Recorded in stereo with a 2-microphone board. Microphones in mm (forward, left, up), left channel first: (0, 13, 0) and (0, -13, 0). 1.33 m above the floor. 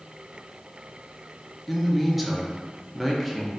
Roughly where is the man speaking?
Centre.